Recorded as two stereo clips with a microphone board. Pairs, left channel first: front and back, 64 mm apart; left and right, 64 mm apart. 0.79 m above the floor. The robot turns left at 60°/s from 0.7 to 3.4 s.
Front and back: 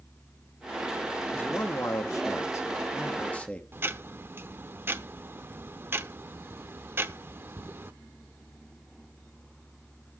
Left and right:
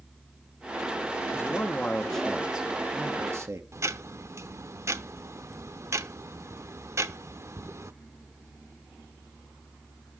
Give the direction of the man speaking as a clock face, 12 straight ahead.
10 o'clock.